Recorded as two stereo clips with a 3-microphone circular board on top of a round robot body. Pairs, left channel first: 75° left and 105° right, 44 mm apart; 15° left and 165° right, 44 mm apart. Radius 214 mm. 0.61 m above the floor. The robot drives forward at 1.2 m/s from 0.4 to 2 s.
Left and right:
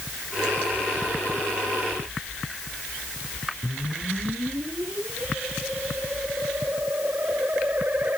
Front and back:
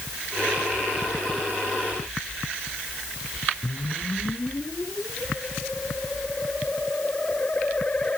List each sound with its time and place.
3.6 s a whoosh: 55° right